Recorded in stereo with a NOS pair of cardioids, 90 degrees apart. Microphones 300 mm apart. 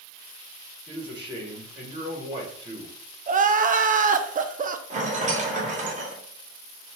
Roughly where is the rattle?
Ahead right.